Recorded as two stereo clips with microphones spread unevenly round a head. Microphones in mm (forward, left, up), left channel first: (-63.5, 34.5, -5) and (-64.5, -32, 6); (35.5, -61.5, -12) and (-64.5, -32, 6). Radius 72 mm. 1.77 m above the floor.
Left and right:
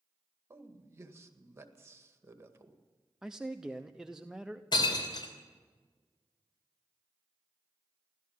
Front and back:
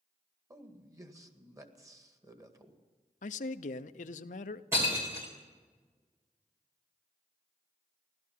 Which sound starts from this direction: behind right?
A man speaking, at 0.5 s.